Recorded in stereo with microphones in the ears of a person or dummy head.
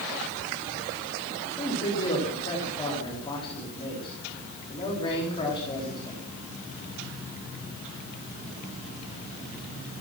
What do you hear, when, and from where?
1.5 s a man speaking: 25° left (ahead or behind), 4 m